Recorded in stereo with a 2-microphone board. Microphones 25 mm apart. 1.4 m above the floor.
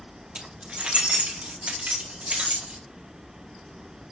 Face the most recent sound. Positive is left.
turn(degrees=-70)  # may be behind; listen again after turning